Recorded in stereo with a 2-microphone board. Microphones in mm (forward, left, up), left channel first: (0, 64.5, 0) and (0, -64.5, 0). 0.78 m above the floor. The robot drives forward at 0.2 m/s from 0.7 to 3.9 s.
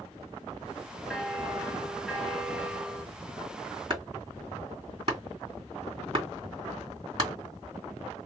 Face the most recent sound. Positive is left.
turn(degrees=-35)  # may be behind; listen again after turning